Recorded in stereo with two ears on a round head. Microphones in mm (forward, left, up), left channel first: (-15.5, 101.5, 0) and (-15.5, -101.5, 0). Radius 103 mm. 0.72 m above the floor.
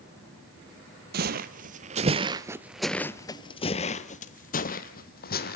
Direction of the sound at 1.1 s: 45° right (ahead or behind).